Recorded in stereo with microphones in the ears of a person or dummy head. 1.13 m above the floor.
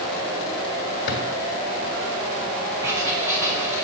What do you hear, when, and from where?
1.1 s a drawer: 65° left (ahead or behind), 1.7 m
2.8 s writing: 15° right (ahead or behind), 1.4 m